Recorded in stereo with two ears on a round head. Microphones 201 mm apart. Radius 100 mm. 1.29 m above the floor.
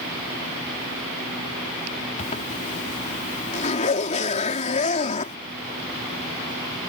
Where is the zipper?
35° left (ahead or behind).